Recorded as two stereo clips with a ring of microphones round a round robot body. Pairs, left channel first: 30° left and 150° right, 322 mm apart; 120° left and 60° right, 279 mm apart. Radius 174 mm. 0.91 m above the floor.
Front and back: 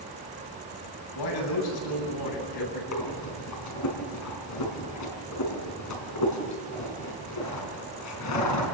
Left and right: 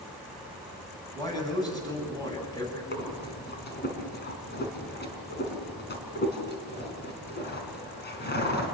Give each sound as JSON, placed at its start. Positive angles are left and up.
{"t": 1.1, "sound": "a man speaking", "azimuth_deg": 45, "distance_m": 9.5}
{"t": 2.9, "sound": "breathing", "azimuth_deg": 65, "distance_m": 4.5}